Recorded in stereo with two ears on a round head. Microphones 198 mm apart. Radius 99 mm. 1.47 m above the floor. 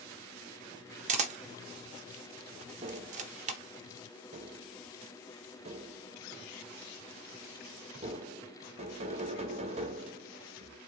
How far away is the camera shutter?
About 0.7 m.